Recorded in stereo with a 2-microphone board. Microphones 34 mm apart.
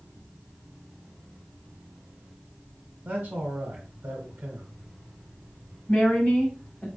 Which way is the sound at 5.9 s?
30° left (ahead or behind).